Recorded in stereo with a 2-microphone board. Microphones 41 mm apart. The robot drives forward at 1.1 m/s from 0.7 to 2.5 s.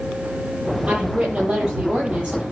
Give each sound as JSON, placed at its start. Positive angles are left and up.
{"t": 0.9, "sound": "a woman speaking", "side_deg": -30, "distance_m": 9.0}